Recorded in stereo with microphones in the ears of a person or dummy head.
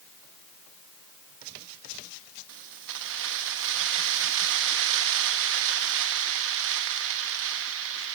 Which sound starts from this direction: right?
Keys jangling, at 2.5 s.